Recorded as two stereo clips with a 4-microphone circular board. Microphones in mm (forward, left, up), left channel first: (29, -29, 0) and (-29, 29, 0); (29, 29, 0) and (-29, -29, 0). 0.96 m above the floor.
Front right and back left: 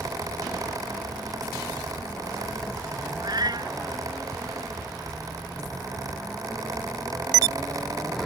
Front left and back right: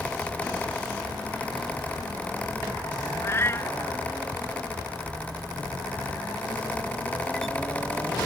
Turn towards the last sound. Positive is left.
turn(degrees=100)